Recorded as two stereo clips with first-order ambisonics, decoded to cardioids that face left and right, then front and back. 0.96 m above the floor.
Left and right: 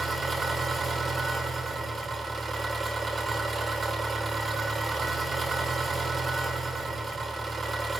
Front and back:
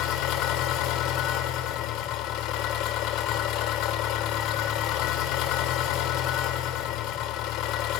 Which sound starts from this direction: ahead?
An engine running, at 0.0 s.